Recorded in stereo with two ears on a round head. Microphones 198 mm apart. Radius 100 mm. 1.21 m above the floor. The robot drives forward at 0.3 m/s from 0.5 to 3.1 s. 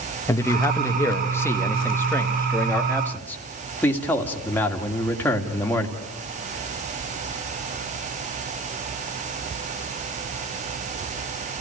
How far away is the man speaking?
About 1.5 m.